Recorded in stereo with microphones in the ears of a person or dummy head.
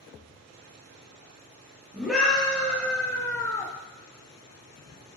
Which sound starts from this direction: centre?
A scream, at 1.9 s.